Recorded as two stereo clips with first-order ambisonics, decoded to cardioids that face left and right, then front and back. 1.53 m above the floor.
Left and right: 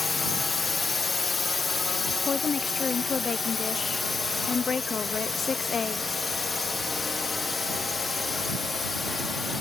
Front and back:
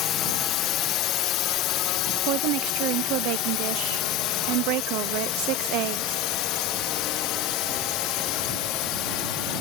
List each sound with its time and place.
0.0 s a drone: 20° left; by 9.6 s 10° left
2.2 s a woman speaking: 160° left